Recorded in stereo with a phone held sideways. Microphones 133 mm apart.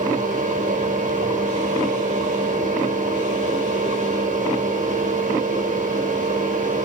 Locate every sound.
0.0 s a fan: 80° right, 5 m